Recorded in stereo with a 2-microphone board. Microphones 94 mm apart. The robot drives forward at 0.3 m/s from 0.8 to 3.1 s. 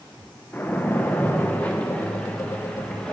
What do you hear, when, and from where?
0.5 s a splash: 20° left (ahead or behind), 0.9 m; by 3.1 s 10° left (ahead or behind), 1.5 m